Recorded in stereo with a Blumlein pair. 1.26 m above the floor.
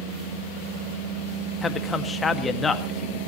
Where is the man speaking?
15° left, 1.9 m.